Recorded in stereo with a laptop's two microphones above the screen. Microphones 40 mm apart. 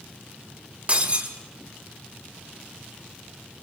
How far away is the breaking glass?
About 1.9 m.